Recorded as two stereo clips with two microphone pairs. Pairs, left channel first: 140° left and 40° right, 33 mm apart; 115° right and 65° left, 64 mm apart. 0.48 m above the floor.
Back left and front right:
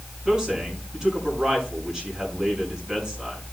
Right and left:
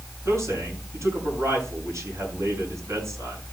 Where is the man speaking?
25° left, 5.5 m.